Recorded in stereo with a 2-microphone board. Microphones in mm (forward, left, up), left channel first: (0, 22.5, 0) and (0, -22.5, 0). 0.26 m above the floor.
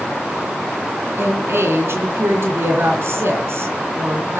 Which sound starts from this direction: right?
A woman speaking, at 1.2 s.